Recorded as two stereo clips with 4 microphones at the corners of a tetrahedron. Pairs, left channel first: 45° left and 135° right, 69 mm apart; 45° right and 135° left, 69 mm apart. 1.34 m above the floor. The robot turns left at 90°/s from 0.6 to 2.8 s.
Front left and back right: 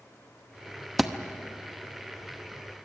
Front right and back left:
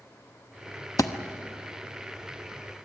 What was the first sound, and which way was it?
A thud, 50° right.